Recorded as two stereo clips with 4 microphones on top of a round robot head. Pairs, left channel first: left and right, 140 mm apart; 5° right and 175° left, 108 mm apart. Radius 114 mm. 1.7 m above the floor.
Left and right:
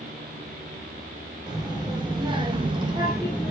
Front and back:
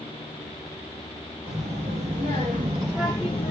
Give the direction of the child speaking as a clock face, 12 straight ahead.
5 o'clock.